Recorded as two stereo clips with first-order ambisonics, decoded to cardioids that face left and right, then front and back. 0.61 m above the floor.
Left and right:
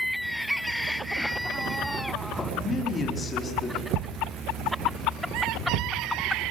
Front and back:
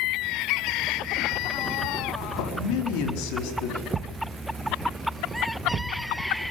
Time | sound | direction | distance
2.4 | a man speaking | 15° left | 5 m
3.9 | a thud | 110° right | 1.2 m